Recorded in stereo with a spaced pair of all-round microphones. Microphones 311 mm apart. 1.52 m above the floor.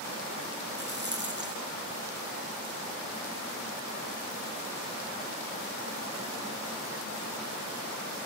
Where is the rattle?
35° right (ahead or behind), 1.8 m.